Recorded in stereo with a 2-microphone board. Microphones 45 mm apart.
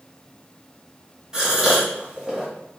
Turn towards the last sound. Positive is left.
turn(degrees=-15)  # may be behind; listen again after turning